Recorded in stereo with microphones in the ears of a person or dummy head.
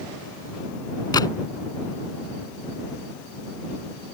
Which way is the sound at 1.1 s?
20° left (ahead or behind).